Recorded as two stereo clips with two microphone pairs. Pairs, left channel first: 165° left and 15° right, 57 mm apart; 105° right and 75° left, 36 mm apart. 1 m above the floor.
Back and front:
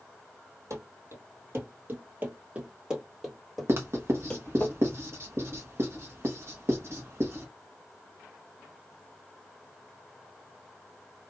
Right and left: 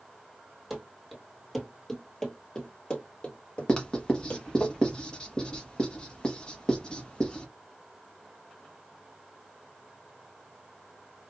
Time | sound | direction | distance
0.7 | running footsteps | 15° right | 1.6 m
3.7 | writing | 45° right | 1.1 m